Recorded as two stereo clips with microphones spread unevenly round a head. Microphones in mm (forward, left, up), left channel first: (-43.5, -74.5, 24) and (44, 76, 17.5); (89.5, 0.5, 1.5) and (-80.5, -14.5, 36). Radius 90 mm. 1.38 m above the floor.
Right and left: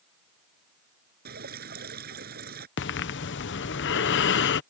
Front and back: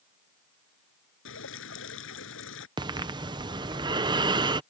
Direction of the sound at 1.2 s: 20° left.